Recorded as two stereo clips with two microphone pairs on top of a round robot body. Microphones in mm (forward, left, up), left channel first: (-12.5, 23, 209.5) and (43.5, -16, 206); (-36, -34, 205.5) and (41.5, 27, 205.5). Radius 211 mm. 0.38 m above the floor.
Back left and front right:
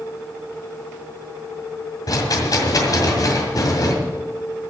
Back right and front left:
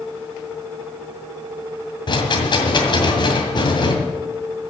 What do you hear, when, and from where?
2.1 s a rattle: straight behind, 2 m